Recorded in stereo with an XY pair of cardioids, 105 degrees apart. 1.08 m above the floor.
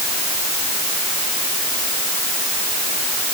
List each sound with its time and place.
Only background noise.